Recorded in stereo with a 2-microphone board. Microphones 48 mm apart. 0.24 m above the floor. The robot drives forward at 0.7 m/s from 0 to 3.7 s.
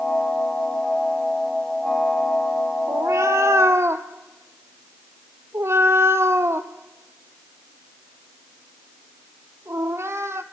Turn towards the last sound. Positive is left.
turn(degrees=-65)  # may be behind; listen again after turning